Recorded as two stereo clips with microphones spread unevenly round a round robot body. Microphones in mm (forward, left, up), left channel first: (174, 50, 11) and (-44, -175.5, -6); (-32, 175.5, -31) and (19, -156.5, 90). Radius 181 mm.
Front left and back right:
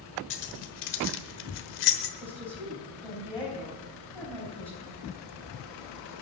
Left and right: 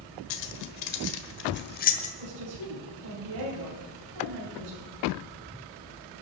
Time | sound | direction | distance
0.3 | keys jangling | 80° left | 1.2 m
2.2 | a woman speaking | 40° right | 4 m